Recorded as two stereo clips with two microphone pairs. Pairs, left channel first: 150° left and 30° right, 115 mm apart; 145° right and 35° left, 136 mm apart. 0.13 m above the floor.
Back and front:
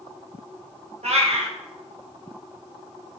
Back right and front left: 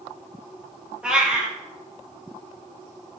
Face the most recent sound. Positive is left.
turn(degrees=-45)